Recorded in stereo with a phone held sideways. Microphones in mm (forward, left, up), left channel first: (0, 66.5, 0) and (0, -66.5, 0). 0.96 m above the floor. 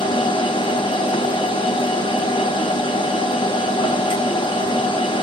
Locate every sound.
0.0 s a machine running: 40° left (ahead or behind), 0.7 m